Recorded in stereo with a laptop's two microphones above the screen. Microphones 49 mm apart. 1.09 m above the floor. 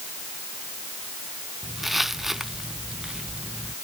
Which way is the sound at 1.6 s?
Centre (ahead or behind).